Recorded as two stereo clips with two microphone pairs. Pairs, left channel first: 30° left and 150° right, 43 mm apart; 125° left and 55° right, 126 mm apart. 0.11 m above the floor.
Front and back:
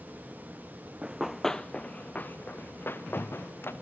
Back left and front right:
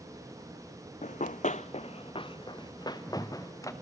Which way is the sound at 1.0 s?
140° left.